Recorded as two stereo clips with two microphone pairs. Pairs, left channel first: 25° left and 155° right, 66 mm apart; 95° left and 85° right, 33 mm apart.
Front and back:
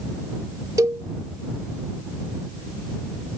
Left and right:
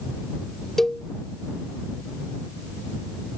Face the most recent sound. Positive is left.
turn(degrees=165)